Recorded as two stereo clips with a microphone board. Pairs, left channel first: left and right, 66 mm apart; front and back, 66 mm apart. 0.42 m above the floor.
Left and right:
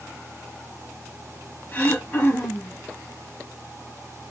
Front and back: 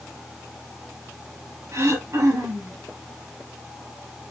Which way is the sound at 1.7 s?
145° left.